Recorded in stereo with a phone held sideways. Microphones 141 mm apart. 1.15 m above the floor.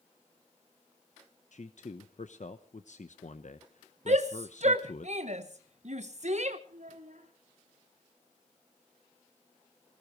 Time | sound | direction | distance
1.5 | a man speaking | 65° left (ahead or behind) | 0.9 m
4.1 | a shout | 60° right (ahead or behind) | 1.1 m
6.7 | a child speaking | 80° right | 3.5 m